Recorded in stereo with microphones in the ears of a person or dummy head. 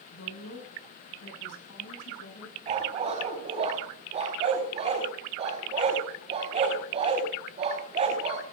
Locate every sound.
0.1 s a woman speaking: 70° left (ahead or behind), 8 m; by 2.6 s 75° left (ahead or behind), 10 m
2.7 s a dog barking: 35° right (ahead or behind), 4 m